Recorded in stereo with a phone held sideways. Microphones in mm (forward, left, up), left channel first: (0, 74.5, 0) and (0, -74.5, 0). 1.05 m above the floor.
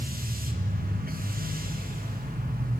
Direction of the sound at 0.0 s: 80° right.